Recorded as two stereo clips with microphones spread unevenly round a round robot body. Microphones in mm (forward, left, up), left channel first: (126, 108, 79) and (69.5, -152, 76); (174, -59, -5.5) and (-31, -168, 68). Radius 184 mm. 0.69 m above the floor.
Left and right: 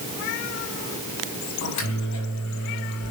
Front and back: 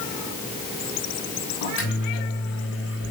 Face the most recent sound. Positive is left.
turn(degrees=65)